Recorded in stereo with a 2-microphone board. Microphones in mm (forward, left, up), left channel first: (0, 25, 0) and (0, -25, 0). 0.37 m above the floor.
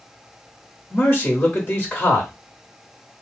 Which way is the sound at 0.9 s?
35° left (ahead or behind).